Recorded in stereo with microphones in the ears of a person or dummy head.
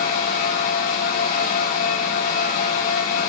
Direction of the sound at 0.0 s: 50° left (ahead or behind).